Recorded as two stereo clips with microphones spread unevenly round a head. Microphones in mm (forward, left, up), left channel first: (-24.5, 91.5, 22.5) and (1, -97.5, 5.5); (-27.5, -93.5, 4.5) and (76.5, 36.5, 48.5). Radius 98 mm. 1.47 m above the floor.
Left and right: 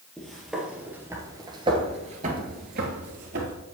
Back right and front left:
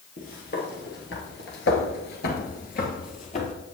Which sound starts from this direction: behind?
Footsteps, at 0.2 s.